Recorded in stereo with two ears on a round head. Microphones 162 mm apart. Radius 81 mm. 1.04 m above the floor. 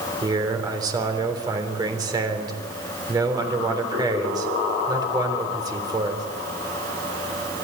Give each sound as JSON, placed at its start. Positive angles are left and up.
{"t": 0.2, "sound": "a man speaking", "side_deg": -25, "distance_m": 3.5}